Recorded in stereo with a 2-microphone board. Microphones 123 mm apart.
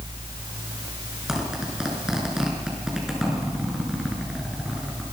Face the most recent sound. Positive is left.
turn(degrees=-5)  # may be behind; listen again after turning